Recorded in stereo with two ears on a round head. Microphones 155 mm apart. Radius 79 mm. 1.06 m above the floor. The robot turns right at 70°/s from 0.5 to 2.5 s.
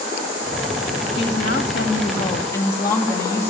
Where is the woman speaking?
70° left, 2 m; by 3.5 s 165° left, 2 m.